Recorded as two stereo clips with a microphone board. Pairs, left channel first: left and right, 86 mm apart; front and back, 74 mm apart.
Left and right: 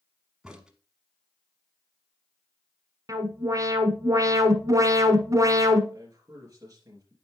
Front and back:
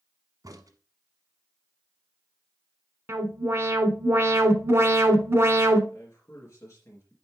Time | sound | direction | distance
0.4 | a crack | 170° right | 1.1 m
3.1 | an alarm | 130° right | 1.2 m
5.9 | a man speaking | 45° right | 3.5 m